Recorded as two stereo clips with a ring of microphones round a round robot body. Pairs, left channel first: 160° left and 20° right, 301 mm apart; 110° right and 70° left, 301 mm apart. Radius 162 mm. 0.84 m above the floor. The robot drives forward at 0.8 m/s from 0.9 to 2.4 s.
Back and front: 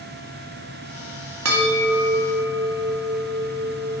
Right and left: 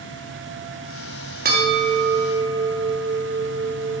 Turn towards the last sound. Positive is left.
turn(degrees=15)